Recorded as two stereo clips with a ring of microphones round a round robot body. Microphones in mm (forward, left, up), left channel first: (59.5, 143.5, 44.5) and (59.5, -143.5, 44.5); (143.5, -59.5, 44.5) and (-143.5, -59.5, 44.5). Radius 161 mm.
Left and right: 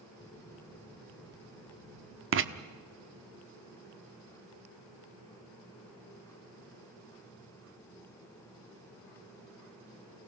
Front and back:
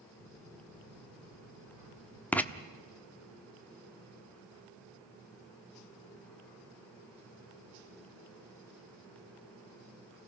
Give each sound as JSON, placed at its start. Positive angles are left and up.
{"t": 0.2, "sound": "footsteps", "azimuth_deg": 175, "distance_m": 8.0}
{"t": 2.3, "sound": "writing", "azimuth_deg": -80, "distance_m": 1.1}